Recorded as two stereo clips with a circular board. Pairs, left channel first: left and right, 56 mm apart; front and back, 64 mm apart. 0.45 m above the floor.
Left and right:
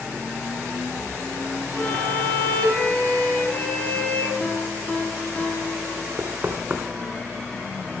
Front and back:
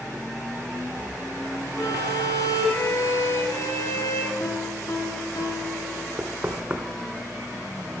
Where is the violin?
25° left, 5 m.